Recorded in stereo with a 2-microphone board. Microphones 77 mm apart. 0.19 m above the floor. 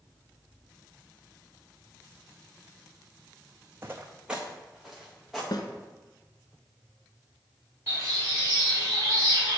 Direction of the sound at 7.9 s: 30° right (ahead or behind).